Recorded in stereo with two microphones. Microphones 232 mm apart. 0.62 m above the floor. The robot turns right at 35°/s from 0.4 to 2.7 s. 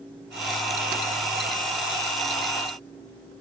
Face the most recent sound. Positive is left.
No sound to turn to.